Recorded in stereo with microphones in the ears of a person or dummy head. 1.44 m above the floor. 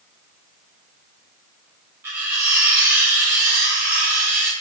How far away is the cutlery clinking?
About 1.3 m.